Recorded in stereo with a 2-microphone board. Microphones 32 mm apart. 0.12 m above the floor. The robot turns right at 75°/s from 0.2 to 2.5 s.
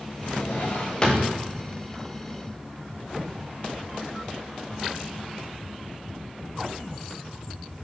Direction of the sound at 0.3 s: 85° left.